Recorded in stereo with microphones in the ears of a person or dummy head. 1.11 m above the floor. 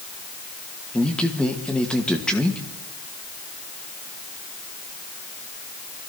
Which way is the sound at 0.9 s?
5° left (ahead or behind).